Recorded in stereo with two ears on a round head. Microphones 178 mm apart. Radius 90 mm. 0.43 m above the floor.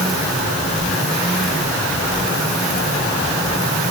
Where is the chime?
No chime in this recording.